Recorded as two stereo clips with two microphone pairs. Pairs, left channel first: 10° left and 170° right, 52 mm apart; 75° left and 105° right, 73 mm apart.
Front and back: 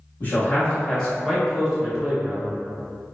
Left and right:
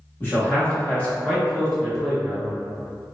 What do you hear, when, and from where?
0.2 s a man speaking: 30° left, 1.1 m; by 2.5 s 170° left, 1.1 m